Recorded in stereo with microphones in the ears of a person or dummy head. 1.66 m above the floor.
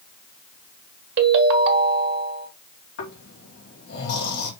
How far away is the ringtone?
About 1.5 m.